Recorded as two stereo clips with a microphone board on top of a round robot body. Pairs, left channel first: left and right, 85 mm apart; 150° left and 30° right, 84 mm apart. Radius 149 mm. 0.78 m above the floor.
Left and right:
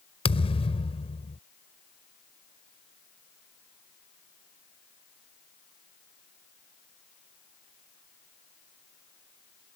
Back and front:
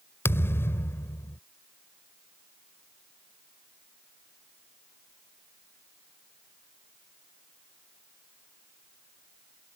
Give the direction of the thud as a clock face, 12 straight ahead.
9 o'clock.